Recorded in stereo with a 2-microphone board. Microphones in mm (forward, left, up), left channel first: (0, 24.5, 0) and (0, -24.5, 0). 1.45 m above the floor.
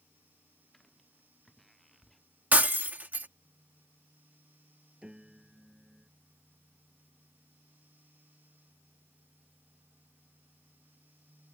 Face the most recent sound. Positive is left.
turn(degrees=-20)  # may be behind; listen again after turning